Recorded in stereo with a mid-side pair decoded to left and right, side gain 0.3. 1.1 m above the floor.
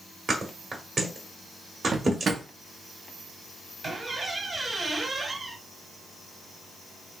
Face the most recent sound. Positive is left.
turn(degrees=-55)